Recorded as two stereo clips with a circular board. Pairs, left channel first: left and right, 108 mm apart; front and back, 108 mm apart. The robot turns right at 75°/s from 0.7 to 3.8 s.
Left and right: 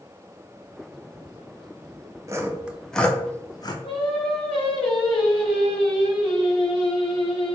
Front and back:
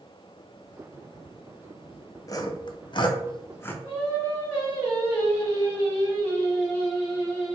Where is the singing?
60° left, 2 m.